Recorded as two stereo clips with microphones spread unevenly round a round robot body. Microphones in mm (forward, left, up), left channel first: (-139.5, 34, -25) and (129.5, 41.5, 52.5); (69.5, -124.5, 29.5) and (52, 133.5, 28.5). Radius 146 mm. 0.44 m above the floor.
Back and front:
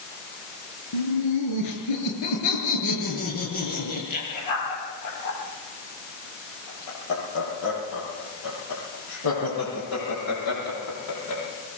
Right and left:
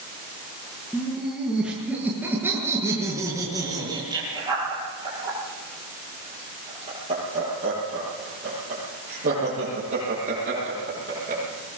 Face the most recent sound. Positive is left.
turn(degrees=155)